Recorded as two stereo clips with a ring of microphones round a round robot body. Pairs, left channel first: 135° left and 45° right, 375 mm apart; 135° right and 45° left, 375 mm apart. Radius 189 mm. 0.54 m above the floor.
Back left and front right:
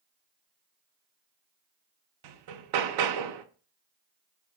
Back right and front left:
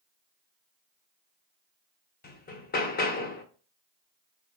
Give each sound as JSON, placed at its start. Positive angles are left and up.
{"t": 2.2, "sound": "hammering", "azimuth_deg": -70, "distance_m": 0.8}